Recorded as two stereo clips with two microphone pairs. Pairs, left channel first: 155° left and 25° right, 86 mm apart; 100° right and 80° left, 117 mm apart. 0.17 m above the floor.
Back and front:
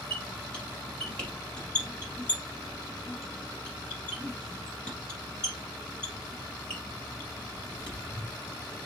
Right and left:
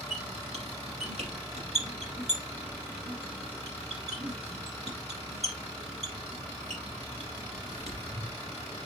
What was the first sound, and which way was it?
A squeak, 75° left.